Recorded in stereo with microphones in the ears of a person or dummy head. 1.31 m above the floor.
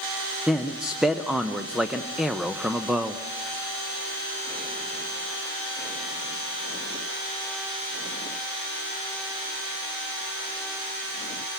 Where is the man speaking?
Centre (ahead or behind), 0.8 m.